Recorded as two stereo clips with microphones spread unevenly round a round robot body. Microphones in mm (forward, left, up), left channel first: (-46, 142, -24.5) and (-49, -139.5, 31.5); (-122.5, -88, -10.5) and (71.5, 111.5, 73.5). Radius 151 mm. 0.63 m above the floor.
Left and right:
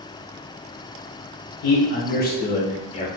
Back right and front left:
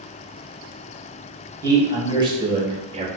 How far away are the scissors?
No scissors in this recording.